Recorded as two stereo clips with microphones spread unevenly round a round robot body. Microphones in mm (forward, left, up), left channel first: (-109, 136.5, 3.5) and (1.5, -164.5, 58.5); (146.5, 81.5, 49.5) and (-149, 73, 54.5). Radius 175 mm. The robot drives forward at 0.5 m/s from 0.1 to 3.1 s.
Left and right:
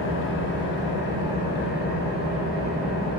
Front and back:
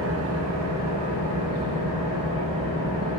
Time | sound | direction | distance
0.0 | an engine running | 145° left | 0.8 m